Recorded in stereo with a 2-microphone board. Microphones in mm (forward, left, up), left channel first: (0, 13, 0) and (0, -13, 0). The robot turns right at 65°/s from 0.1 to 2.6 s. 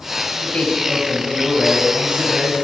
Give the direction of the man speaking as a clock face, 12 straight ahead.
8 o'clock.